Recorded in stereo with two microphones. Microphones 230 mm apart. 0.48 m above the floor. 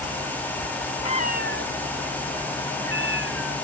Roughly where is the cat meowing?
Left.